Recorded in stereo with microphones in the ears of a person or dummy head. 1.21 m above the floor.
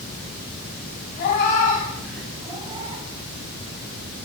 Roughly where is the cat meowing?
Left.